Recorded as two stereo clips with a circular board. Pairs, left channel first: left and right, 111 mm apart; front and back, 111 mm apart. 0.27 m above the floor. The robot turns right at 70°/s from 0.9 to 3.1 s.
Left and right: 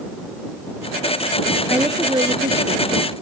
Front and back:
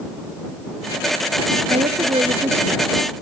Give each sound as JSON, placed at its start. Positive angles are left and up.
{"t": 1.7, "sound": "a woman speaking", "azimuth_deg": -170}